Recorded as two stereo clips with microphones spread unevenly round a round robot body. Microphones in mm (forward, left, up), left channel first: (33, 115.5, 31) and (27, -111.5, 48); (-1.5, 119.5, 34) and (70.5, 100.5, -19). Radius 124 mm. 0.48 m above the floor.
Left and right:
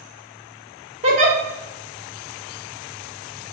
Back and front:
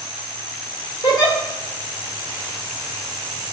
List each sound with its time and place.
1.0 s a giggle: 130° right, 1.1 m